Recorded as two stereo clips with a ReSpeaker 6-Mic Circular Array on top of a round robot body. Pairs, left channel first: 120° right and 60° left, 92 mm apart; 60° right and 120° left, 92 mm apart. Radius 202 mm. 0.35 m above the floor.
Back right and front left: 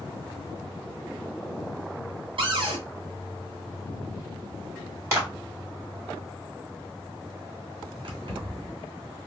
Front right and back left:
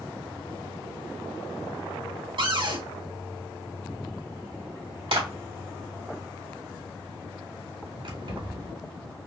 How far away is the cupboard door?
About 1.9 m.